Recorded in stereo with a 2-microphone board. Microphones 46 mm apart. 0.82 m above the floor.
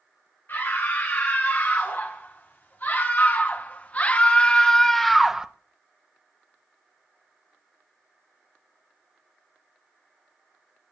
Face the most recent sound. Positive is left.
turn(degrees=-15)  # may be behind; listen again after turning